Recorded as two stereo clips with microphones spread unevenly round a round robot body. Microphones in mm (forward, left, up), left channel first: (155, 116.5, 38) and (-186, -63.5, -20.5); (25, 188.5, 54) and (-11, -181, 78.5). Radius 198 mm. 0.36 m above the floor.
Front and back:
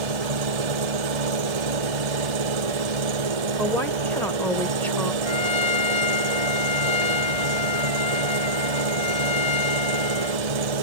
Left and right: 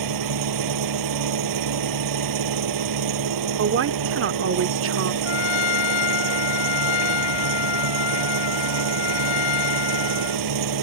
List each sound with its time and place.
0.0 s an engine running: 135° right
3.6 s a woman speaking: 70° right
5.2 s a trumpet: 100° left